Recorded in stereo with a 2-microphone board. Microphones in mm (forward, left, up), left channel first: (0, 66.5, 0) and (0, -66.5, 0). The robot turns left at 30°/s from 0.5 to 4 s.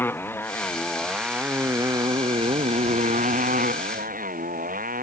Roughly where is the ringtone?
No ringtone in this recording.